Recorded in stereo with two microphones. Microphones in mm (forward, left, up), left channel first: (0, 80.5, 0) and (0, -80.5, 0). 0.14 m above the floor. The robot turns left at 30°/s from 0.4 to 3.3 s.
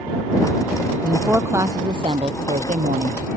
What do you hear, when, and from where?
1.0 s a woman speaking: 5° right; by 3.4 s 75° right